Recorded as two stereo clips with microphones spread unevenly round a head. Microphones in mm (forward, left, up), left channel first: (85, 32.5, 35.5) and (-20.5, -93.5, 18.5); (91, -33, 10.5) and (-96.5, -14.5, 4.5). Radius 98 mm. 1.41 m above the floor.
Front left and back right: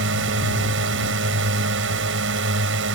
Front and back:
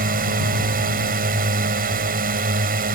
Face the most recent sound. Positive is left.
turn(degrees=-140)